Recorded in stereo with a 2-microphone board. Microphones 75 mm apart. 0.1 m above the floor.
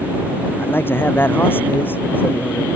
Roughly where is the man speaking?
Left.